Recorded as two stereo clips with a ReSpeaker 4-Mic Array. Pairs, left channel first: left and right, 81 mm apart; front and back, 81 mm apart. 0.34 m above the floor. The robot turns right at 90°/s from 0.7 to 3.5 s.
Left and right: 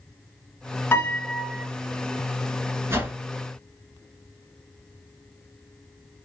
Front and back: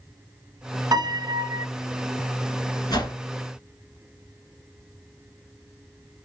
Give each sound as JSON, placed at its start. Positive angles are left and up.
{"t": 0.9, "sound": "a piano", "azimuth_deg": 150, "distance_m": 1.4}
{"t": 2.9, "sound": "a whoosh", "azimuth_deg": -35, "distance_m": 1.0}